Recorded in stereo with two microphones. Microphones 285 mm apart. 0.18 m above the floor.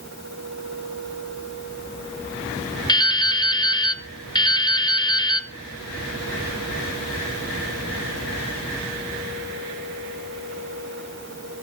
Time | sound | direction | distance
2.9 | dripping | 15° left (ahead or behind) | 0.7 m